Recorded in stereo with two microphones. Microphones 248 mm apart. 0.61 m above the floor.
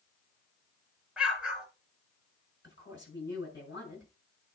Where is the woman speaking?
45° left (ahead or behind), 7 m.